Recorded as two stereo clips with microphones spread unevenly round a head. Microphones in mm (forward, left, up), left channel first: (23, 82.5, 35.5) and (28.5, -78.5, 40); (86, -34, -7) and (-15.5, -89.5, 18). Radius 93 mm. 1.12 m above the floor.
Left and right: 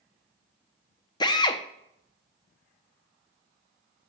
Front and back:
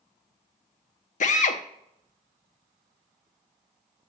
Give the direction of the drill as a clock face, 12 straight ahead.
11 o'clock.